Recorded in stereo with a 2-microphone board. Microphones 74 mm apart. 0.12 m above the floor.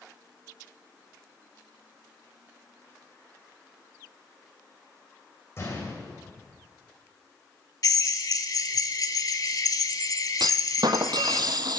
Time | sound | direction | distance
5.6 | a gunshot | 40° left (ahead or behind) | 5 m
7.8 | a drill | 55° left (ahead or behind) | 0.9 m
10.4 | a clunk | 70° right (ahead or behind) | 0.6 m